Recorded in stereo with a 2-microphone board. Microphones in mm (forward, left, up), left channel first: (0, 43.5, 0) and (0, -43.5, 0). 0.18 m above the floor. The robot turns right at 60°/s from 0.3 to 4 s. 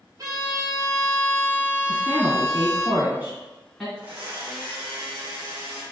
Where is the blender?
25° right (ahead or behind), 1.5 m.